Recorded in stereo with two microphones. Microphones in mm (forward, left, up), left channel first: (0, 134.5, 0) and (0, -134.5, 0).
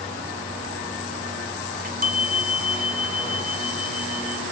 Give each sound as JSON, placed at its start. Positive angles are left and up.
{"t": 1.7, "sound": "a chime", "side_deg": -35, "distance_m": 1.5}